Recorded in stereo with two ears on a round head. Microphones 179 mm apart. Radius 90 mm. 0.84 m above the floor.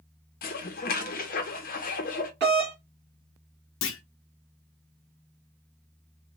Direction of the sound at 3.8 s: 70° left (ahead or behind).